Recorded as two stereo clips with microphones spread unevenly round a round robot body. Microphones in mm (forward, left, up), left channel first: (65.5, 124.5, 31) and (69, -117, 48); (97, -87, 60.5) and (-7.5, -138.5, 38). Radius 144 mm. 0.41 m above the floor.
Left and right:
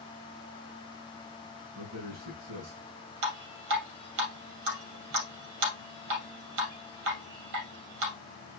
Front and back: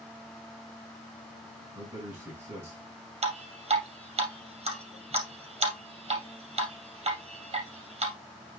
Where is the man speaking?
85° right, 5 m.